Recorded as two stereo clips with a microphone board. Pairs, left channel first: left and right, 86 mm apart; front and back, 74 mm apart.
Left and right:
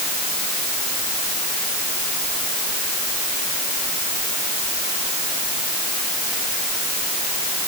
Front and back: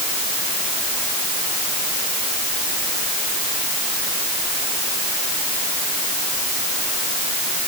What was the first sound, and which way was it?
Only background noise.